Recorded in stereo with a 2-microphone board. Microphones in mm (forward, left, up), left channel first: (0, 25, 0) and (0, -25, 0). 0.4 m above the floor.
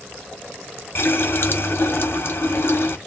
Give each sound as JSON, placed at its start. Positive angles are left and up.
{"t": 0.9, "sound": "a running tap", "side_deg": 60, "distance_m": 1.3}